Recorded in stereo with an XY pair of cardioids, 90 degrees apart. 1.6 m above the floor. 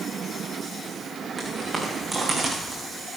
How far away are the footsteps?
About 6 m.